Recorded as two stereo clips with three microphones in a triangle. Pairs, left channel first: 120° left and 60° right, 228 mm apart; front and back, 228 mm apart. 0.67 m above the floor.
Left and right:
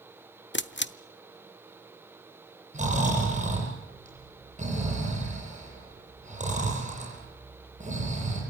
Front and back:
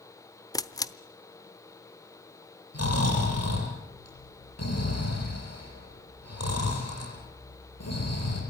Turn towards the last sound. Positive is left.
turn(degrees=0)